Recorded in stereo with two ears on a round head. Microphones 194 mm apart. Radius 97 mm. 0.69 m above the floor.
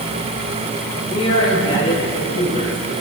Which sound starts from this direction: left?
A man speaking, at 1.1 s.